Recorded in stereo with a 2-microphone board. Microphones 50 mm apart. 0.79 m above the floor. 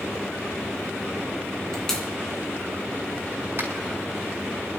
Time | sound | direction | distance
1.7 | a pop | 10° left (ahead or behind) | 3 m
3.6 | a finger snap | 60° right (ahead or behind) | 3.5 m